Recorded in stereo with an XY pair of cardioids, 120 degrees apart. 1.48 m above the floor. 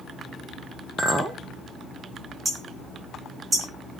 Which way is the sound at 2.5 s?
30° right.